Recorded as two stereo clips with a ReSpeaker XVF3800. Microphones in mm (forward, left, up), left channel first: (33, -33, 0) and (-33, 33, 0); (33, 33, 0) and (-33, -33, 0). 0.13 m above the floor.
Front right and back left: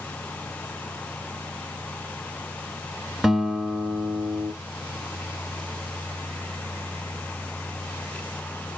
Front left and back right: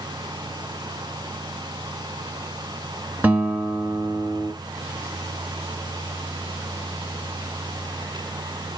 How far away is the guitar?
About 1.0 m.